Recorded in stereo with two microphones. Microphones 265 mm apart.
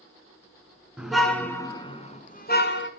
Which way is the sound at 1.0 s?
5° right (ahead or behind).